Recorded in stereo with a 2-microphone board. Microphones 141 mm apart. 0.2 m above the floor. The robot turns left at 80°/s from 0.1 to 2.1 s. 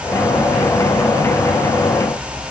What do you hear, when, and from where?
Only background noise.